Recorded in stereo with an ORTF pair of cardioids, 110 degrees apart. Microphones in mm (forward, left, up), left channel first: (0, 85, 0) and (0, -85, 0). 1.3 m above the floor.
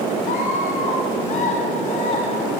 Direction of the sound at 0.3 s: 55° left.